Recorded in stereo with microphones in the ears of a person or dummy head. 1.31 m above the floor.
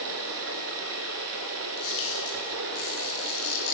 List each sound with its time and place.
0.0 s running water: 70° right (ahead or behind), 3 m
1.8 s a camera shutter: 85° left, 8 m